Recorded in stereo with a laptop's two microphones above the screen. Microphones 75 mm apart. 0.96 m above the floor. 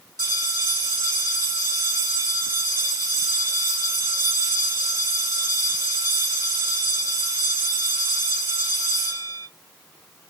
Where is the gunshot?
No gunshot in this recording.